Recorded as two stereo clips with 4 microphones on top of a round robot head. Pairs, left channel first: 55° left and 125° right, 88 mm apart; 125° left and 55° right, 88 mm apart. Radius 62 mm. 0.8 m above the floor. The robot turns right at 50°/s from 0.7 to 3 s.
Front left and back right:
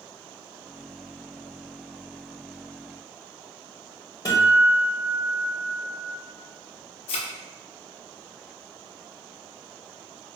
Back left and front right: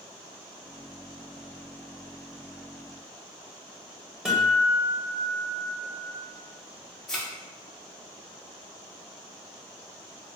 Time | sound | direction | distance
4.2 | a guitar | 20° left | 1.5 m
7.1 | a thud | 40° left | 0.6 m